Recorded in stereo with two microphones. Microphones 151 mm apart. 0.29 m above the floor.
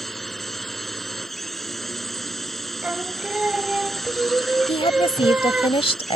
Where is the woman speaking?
35° left (ahead or behind).